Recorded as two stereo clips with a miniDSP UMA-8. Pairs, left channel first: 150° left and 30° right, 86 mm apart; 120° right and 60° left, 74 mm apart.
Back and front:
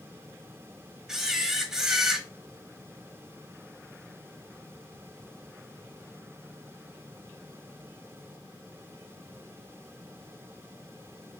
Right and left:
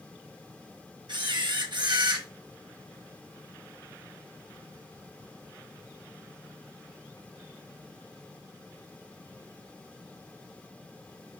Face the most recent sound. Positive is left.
turn(degrees=55)